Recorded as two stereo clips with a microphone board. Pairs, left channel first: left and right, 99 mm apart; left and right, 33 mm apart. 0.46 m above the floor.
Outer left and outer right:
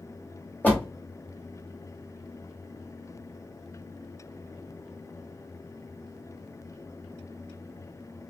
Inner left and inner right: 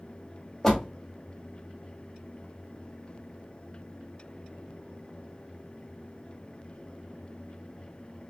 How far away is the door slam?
About 1.6 m.